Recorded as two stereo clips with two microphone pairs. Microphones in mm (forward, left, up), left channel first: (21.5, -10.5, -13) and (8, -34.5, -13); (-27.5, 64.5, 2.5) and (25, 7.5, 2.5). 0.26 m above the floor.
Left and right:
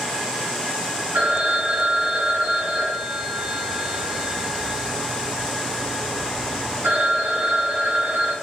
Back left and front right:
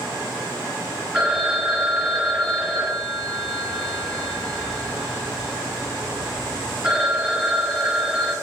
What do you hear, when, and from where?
1.1 s a phone ringing: 130° right, 2.5 m